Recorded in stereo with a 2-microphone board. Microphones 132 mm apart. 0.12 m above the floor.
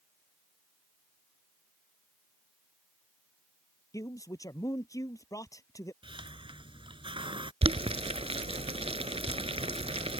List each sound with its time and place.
3.9 s a man speaking: 25° left (ahead or behind)
6.0 s a hiss: 40° right (ahead or behind)
7.6 s boiling: 45° right (ahead or behind)